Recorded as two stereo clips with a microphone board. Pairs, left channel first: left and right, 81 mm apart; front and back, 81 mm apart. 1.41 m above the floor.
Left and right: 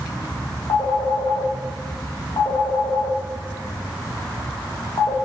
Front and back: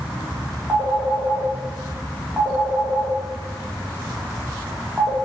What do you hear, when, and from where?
0.7 s a phone ringing: 100° left, 2.5 m